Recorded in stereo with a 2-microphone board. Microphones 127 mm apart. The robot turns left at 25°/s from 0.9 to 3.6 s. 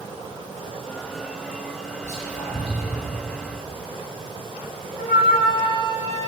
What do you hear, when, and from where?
2.0 s whispering: 65° left (ahead or behind), 1.9 m; by 3.1 s 40° left (ahead or behind), 1.9 m
5.0 s a flute: 70° left (ahead or behind), 3 m